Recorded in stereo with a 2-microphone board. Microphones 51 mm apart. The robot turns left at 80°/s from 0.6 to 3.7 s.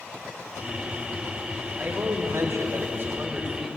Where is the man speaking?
40° right, 6 m; by 3.8 s 165° left, 6 m.